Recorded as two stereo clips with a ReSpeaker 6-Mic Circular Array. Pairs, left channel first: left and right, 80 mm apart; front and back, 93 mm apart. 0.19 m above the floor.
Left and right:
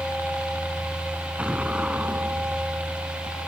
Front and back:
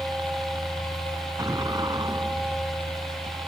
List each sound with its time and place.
0.0 s a helicopter: 145° right; by 3.5 s 155° right
1.4 s an explosion: 160° right